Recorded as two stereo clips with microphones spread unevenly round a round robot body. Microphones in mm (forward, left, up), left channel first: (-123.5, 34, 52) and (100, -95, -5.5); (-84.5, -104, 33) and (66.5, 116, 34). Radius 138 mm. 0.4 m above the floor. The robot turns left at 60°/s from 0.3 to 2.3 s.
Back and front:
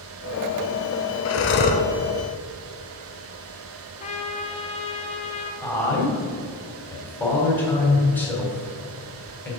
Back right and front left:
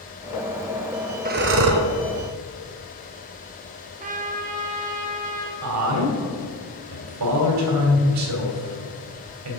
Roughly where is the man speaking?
Ahead left.